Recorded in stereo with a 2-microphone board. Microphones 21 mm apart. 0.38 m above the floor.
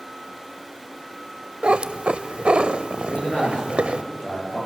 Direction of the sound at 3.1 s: 80° left.